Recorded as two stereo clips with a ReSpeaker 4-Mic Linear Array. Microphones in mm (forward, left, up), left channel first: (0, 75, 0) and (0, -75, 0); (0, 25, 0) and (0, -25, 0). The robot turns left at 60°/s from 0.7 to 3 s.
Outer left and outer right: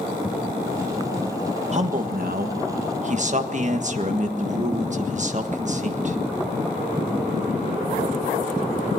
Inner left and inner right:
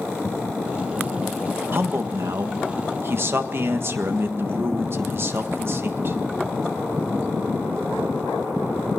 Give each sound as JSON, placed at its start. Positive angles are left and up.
{"t": 1.7, "sound": "a man speaking", "azimuth_deg": -50, "distance_m": 1.5}